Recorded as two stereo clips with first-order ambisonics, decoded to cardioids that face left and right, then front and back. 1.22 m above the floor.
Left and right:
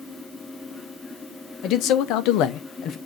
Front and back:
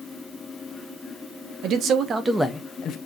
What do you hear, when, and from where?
1.6 s a man speaking: 135° left, 1.0 m; by 3.0 s 40° left, 0.6 m